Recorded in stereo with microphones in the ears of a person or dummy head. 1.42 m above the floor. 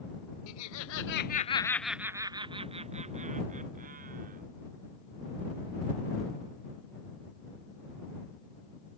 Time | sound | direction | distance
0.5 | laughter | 85° left | ?